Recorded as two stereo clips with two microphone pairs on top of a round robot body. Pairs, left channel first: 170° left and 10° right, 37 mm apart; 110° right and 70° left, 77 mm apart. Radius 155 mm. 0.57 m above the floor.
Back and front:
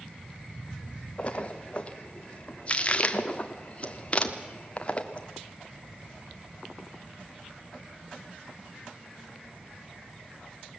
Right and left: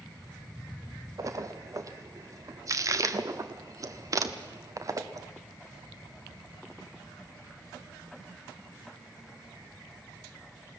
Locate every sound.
1.2 s a splash: 115° left, 1.4 m